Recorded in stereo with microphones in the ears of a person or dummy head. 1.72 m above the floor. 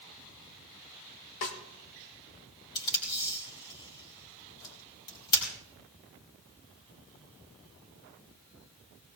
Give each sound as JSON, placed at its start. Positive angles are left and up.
{"t": 1.4, "sound": "a snare drum", "side_deg": 65, "distance_m": 1.6}
{"t": 2.8, "sound": "tape being pulled", "side_deg": 25, "distance_m": 3.5}